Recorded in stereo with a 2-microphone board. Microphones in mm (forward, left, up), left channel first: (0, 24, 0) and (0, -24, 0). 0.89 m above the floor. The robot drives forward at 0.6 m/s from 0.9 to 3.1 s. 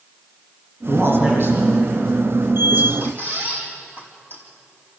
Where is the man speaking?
55° right (ahead or behind), 7.5 m; by 2.9 s 50° right (ahead or behind), 8 m.